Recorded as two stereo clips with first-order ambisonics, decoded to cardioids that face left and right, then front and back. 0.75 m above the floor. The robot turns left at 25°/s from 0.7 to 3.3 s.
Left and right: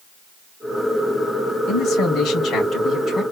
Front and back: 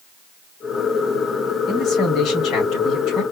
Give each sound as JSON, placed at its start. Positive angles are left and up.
{"t": 1.7, "sound": "a man speaking", "azimuth_deg": 45, "distance_m": 2.5}